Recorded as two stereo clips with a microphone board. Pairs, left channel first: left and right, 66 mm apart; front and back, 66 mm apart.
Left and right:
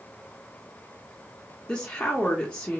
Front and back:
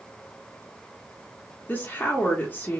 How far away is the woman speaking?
About 0.6 m.